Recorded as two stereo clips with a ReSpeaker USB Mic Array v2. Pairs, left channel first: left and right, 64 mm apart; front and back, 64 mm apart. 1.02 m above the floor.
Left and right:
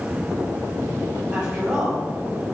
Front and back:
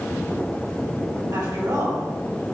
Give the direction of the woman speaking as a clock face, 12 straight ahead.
5 o'clock.